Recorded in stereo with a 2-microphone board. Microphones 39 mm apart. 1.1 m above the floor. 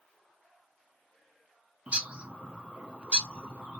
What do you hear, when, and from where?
1.9 s a bird: 35° right (ahead or behind), 0.6 m